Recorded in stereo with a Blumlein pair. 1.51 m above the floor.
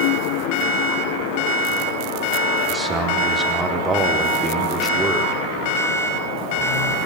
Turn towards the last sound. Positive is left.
turn(degrees=-10)